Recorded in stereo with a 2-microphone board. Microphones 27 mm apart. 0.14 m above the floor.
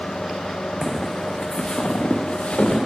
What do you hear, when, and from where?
0.8 s footsteps: 10° right (ahead or behind), 0.5 m; by 2.8 s 60° left (ahead or behind), 1.3 m